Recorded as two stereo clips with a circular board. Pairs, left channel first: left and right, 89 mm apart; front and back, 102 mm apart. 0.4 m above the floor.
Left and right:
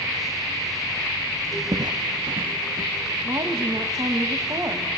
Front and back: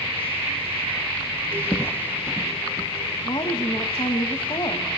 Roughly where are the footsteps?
Ahead right.